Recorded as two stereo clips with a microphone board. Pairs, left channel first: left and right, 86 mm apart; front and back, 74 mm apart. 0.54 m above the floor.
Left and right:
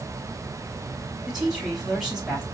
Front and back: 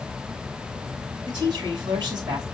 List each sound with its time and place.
1.3 s a woman speaking: 175° right, 4 m